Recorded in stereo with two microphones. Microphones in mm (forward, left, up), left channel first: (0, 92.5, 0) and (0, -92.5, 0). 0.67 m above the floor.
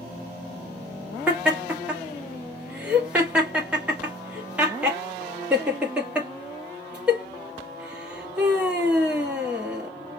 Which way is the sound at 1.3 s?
5° right (ahead or behind).